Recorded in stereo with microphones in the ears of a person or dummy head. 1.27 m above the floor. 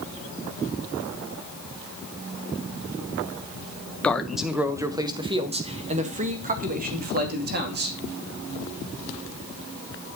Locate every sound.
4.0 s a man speaking: 5° left (ahead or behind), 1.1 m; by 8.0 s 50° right (ahead or behind), 2.5 m